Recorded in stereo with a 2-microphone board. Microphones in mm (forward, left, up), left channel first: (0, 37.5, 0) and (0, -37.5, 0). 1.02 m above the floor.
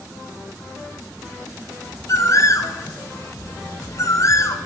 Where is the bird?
45° left (ahead or behind), 0.7 m.